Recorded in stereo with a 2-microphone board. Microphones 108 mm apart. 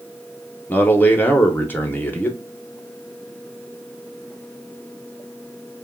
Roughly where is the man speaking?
Centre.